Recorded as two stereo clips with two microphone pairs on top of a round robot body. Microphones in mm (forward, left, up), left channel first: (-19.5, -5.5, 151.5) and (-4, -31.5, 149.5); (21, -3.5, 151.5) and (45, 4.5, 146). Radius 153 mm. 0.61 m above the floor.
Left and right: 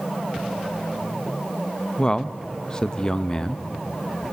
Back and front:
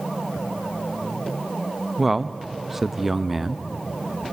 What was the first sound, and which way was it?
A man speaking, 70° left.